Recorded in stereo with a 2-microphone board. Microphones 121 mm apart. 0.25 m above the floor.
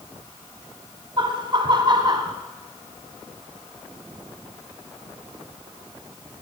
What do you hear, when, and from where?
1.2 s laughter: 40° right (ahead or behind), 1.9 m; by 2.3 s 35° right (ahead or behind), 1.2 m